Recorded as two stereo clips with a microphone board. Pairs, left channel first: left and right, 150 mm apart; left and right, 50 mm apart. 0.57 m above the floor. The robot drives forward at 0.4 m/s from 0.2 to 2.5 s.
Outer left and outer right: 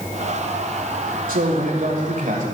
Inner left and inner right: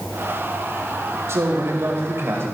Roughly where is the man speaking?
Right.